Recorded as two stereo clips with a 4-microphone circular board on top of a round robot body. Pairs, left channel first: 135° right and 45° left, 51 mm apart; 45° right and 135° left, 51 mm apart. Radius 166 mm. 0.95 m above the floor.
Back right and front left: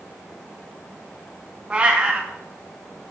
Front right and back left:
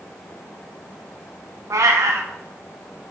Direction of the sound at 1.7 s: 115° left.